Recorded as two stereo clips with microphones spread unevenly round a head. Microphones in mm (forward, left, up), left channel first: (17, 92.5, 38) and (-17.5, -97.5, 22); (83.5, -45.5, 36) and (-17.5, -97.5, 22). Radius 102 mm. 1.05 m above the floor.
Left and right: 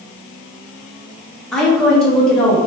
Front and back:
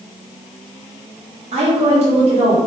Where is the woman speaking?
165° left, 2 m.